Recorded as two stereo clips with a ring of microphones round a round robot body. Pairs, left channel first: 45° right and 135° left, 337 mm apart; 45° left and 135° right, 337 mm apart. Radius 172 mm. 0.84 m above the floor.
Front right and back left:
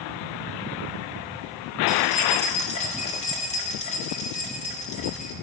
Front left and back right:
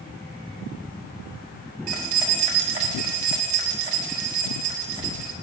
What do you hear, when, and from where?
1.9 s keys jangling: 115° right, 1.4 m